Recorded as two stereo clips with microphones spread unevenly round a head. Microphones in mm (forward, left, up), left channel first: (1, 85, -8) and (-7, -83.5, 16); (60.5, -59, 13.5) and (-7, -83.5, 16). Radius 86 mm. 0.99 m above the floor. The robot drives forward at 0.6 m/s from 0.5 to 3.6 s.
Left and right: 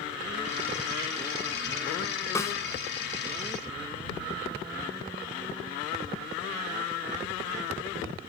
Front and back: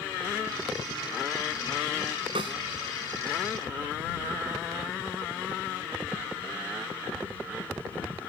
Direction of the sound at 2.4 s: 165° left.